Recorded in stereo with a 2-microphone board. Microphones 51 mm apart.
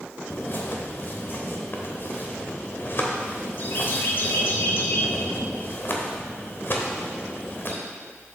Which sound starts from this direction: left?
A bird, at 0.3 s.